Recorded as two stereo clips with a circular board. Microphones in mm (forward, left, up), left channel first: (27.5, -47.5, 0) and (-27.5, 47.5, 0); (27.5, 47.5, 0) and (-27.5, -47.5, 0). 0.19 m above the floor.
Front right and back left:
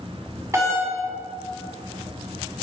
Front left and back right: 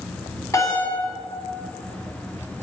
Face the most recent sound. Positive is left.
turn(degrees=85)